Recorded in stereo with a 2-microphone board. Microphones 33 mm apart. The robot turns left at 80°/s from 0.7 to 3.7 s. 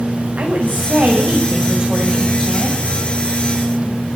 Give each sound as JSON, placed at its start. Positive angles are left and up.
{"t": 0.4, "sound": "a woman speaking", "azimuth_deg": -65, "distance_m": 6.5}